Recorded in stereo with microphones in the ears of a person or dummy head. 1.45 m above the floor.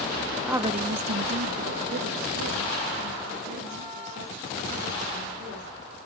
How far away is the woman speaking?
About 0.6 m.